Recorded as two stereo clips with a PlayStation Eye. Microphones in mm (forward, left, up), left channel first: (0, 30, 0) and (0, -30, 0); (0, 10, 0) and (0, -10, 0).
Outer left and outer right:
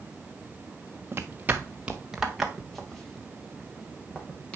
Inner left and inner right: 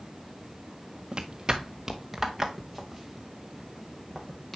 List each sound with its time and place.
1.1 s footsteps: 40° right (ahead or behind), 1.3 m; by 4.6 s 20° left (ahead or behind), 3.5 m